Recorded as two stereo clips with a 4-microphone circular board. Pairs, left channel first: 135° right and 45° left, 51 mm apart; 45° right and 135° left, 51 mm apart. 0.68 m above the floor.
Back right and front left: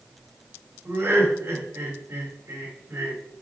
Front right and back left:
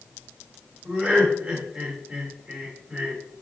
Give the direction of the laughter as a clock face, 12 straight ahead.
9 o'clock.